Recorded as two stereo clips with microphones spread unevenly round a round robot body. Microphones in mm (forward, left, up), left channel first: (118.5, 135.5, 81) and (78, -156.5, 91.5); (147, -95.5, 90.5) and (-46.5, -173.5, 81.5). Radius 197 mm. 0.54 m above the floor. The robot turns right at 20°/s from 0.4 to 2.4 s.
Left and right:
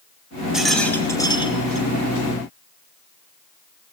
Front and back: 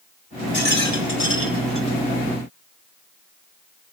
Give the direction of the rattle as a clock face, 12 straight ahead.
12 o'clock.